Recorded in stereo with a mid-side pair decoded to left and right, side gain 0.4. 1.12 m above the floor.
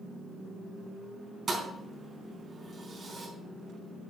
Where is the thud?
40° right, 4.5 m.